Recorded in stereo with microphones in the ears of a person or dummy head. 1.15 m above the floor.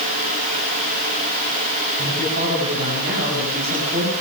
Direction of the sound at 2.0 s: 50° right (ahead or behind).